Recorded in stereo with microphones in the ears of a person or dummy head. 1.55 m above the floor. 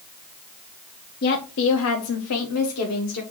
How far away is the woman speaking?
About 0.8 m.